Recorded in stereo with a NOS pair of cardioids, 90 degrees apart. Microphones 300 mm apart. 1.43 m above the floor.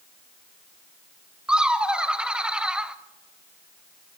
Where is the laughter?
5° right, 0.9 m.